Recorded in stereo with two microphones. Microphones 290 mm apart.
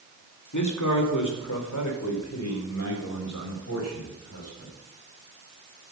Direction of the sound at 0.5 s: 80° left.